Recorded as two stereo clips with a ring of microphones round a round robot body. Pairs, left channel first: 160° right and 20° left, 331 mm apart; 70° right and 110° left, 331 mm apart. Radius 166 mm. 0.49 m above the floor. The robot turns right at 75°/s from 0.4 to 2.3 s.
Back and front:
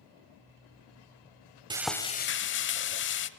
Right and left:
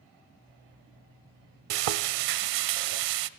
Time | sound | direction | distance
1.7 | frying | 100° left | 0.9 m